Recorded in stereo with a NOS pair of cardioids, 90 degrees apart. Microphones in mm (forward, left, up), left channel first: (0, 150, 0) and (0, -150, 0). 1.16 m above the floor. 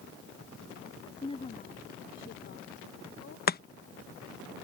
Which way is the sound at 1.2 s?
15° left.